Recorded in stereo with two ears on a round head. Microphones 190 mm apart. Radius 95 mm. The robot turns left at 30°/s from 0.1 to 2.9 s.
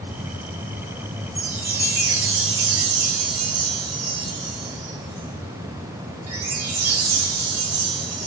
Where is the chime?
35° right, 5.5 m; by 8.3 s 80° right, 5.5 m.